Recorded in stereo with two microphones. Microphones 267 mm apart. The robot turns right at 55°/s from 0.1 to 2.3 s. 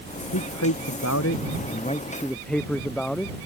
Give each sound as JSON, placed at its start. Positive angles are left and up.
{"t": 0.3, "sound": "a man speaking", "azimuth_deg": 70}